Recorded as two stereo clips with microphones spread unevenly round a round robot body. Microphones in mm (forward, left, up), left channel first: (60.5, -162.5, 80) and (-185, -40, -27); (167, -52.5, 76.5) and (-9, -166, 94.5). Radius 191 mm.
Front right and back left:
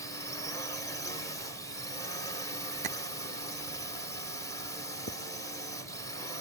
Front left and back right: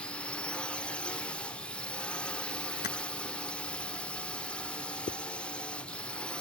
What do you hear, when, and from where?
0.0 s a drone: 95° left
2.8 s tapping: 85° left
5.1 s a zipper: 70° left